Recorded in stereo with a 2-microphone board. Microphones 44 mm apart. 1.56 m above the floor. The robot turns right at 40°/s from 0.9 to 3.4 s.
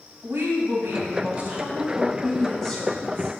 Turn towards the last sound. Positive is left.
turn(degrees=40)